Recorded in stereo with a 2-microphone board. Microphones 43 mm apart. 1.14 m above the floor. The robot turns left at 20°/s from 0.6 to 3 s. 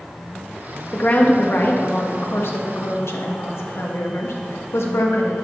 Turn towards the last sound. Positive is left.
turn(degrees=105)